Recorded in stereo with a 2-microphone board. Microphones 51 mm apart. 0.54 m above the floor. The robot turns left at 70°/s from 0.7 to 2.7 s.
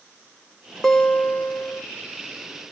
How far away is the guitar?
About 1.4 m.